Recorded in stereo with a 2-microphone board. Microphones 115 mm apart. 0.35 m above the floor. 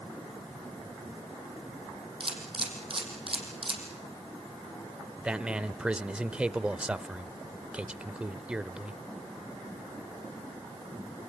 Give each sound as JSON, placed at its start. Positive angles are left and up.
{"t": 2.2, "sound": "a camera shutter", "side_deg": -50, "distance_m": 5.0}
{"t": 5.2, "sound": "a man speaking", "side_deg": -10, "distance_m": 0.8}